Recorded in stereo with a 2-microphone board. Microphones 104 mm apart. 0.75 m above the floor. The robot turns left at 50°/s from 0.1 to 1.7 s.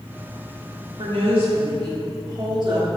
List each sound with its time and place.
1.0 s a woman speaking: 95° right, 1.7 m; by 2.9 s 130° right, 1.7 m